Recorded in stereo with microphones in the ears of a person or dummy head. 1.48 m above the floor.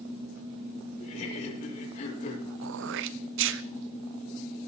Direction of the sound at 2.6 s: 60° right (ahead or behind).